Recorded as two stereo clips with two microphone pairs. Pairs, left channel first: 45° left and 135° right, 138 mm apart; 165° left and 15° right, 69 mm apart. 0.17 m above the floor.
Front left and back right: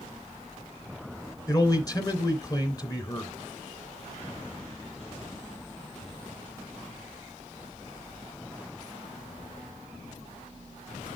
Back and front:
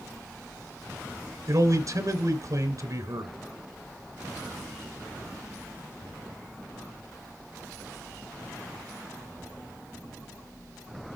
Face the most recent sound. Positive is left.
turn(degrees=-10)